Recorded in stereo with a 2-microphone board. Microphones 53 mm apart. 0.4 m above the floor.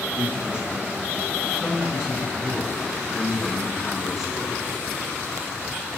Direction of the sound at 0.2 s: 25° right (ahead or behind).